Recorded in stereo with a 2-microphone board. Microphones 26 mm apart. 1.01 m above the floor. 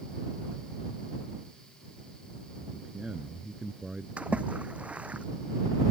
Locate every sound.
2.6 s a man speaking: 25° right (ahead or behind)
4.2 s a splash: 70° right (ahead or behind)